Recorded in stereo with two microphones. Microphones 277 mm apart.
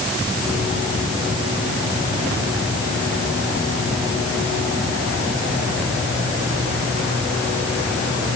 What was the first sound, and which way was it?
Only background noise.